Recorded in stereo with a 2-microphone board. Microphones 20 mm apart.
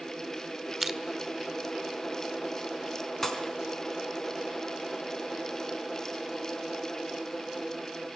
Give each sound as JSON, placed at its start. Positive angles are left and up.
{"t": 0.8, "sound": "crushing", "side_deg": -5, "distance_m": 1.2}
{"t": 3.2, "sound": "a pop", "side_deg": 20, "distance_m": 3.5}